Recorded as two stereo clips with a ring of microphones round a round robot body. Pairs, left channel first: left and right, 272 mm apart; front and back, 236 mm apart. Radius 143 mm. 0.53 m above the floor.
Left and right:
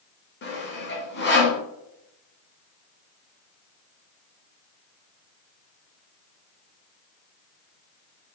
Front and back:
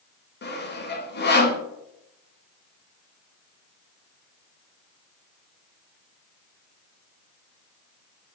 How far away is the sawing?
About 1.4 m.